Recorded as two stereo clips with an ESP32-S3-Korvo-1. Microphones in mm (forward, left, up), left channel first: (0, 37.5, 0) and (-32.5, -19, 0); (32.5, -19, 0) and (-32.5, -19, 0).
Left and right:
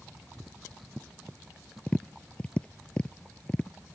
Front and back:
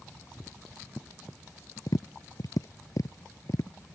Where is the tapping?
15° right.